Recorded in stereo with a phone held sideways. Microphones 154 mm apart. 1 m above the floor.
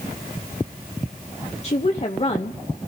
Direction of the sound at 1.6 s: 40° left (ahead or behind).